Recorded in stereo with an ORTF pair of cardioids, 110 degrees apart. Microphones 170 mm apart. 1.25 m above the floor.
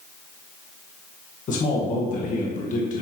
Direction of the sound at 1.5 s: 50° left.